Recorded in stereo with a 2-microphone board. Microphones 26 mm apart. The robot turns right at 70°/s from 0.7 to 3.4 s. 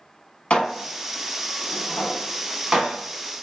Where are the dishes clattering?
40° left (ahead or behind), 1.0 m; by 3.3 s 45° right (ahead or behind), 1.0 m.